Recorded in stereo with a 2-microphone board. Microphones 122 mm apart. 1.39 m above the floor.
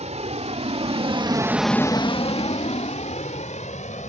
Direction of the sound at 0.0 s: 70° right (ahead or behind).